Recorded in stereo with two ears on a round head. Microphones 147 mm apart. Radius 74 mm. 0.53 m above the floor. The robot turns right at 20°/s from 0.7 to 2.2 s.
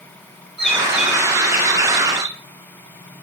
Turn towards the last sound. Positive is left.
turn(degrees=-150)